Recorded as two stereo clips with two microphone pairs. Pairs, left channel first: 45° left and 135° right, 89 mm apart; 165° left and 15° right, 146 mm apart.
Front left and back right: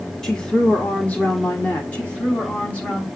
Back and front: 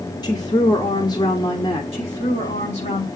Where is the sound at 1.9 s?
120° left, 6.5 m.